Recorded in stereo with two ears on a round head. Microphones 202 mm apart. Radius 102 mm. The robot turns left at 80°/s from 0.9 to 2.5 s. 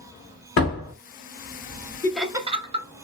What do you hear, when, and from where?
0.6 s a door slam: 70° left (ahead or behind), 2.0 m; by 0.9 s 75° left (ahead or behind), 2.0 m
2.0 s laughter: 15° left (ahead or behind), 0.7 m; by 2.9 s 25° right (ahead or behind), 0.7 m